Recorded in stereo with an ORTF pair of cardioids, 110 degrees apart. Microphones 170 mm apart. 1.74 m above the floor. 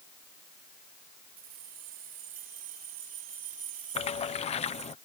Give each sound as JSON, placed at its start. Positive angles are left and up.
{"t": 1.4, "sound": "keys jangling", "azimuth_deg": -65}
{"t": 4.0, "sound": "a splash", "azimuth_deg": 40}